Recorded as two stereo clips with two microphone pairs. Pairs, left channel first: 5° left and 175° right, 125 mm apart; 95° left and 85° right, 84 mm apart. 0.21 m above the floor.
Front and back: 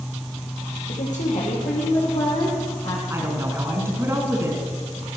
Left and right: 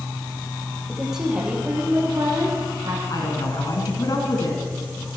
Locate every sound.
0.9 s a woman speaking: 5° left, 5 m; by 3.0 s 30° right, 5.5 m
3.1 s a woman speaking: 120° left, 2.5 m